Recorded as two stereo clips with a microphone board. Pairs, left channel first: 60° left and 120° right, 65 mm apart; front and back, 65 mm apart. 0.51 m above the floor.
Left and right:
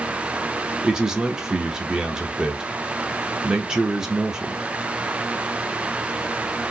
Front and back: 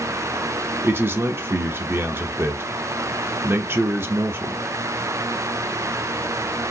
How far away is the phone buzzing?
I don't hear a phone buzzing.